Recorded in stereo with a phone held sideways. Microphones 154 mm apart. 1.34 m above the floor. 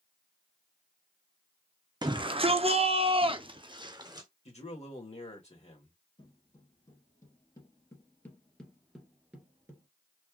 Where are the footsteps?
35° left (ahead or behind), 2 m; by 9.9 s 20° right (ahead or behind), 1.3 m.